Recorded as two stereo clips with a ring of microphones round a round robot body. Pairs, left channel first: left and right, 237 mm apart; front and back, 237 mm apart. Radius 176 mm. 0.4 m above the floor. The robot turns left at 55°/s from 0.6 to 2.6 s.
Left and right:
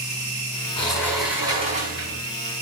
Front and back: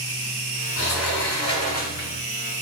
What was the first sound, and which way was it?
A sliding door, 25° left.